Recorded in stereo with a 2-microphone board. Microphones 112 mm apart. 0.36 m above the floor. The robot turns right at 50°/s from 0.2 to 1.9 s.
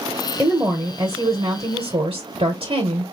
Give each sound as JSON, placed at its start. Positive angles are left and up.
{"t": 0.4, "sound": "a woman speaking", "azimuth_deg": -170, "distance_m": 1.2}